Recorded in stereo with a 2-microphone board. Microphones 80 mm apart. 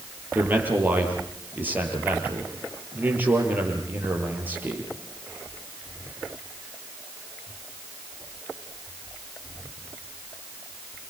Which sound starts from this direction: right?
A man speaking, at 0.3 s.